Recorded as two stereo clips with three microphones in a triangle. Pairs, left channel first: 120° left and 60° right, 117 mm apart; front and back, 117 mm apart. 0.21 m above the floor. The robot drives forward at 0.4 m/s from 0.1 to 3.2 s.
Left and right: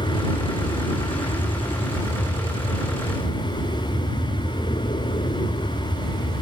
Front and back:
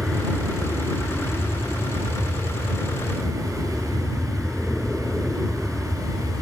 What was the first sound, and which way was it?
An aircraft, 85° left.